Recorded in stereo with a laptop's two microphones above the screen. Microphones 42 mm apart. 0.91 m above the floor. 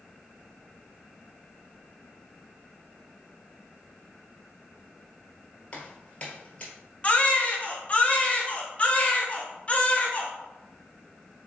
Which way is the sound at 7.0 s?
30° left (ahead or behind).